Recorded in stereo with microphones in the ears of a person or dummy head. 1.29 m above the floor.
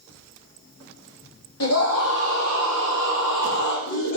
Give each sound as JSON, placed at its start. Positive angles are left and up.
{"t": 1.6, "sound": "a scream", "side_deg": 80, "distance_m": 3.0}